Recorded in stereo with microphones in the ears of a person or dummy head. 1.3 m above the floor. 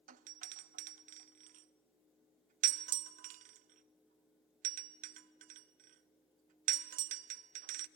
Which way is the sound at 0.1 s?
40° right (ahead or behind).